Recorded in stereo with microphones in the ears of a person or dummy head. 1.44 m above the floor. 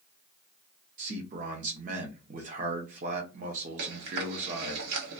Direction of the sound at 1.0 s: 45° right (ahead or behind).